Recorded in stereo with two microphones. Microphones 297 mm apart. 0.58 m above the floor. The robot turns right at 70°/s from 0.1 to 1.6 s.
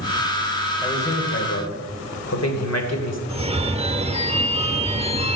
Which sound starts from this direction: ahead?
A man speaking, at 0.8 s.